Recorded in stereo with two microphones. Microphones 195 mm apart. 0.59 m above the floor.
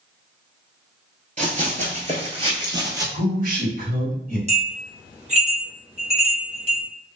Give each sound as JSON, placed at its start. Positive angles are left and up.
{"t": 1.4, "sound": "running footsteps", "side_deg": -40, "distance_m": 0.7}
{"t": 3.1, "sound": "a man speaking", "side_deg": -50, "distance_m": 1.4}
{"t": 4.5, "sound": "a bell", "side_deg": -35, "distance_m": 1.0}